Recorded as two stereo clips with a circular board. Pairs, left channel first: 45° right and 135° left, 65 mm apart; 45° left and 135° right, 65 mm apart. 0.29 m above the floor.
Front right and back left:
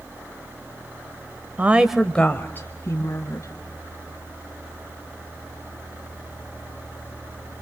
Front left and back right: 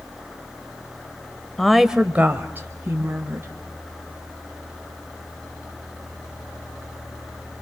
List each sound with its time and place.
1.6 s a woman speaking: 125° left, 1.0 m; by 3.5 s 80° right, 2.5 m